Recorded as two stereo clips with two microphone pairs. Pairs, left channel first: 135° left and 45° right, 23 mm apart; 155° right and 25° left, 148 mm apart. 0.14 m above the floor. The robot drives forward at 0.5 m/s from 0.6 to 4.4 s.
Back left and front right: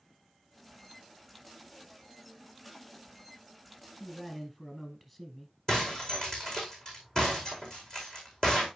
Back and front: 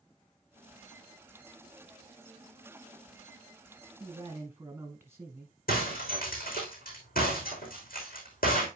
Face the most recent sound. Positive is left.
turn(degrees=-160)